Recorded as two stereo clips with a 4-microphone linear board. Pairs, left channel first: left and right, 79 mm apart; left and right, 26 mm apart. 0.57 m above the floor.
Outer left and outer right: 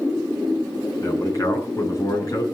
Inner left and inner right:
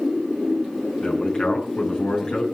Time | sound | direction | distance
1.0 | a man speaking | 40° left (ahead or behind) | 6.5 m